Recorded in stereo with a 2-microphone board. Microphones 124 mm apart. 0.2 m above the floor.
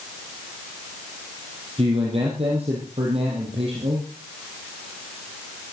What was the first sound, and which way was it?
A man speaking, 55° right (ahead or behind).